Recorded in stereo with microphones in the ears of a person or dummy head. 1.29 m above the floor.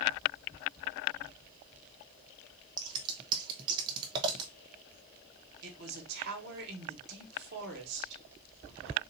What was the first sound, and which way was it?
Scissors, 30° right (ahead or behind).